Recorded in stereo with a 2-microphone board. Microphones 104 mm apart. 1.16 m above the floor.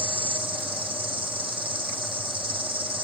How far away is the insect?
About 1.4 m.